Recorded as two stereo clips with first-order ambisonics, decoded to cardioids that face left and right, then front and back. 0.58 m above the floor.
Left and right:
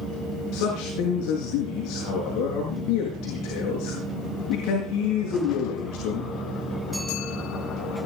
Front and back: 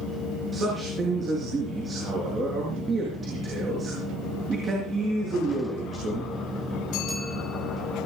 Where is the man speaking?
115° left, 7.5 m.